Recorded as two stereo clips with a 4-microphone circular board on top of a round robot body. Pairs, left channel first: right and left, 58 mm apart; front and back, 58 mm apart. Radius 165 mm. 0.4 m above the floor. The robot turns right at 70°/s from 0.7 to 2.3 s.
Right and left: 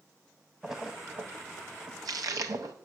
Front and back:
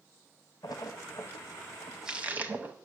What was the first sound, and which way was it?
A splash, 5° left.